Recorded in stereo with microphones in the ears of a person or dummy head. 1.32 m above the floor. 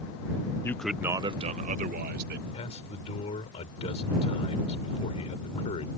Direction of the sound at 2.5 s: 35° left (ahead or behind).